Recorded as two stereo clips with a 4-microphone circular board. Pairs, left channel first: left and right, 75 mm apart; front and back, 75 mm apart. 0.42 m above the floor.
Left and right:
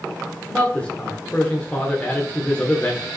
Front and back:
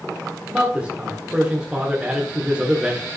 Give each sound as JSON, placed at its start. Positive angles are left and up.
{"t": 0.5, "sound": "a man speaking", "azimuth_deg": 135, "distance_m": 1.4}